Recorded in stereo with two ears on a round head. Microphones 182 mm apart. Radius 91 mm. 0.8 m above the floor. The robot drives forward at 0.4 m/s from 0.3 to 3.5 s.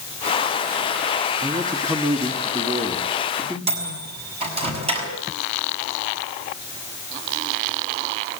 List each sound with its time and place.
1.4 s a man speaking: 20° right (ahead or behind), 1.5 m; by 3.6 s 15° right (ahead or behind), 2 m
3.7 s a microwave: 30° right (ahead or behind), 6 m